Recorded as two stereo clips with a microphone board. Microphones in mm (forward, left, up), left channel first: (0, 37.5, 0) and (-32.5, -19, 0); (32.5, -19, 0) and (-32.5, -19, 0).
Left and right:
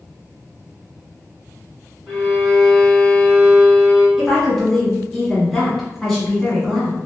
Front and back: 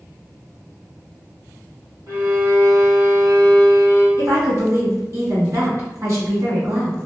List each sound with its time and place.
2.1 s a violin: 160° left, 1.6 m
4.2 s a woman speaking: 150° left, 1.4 m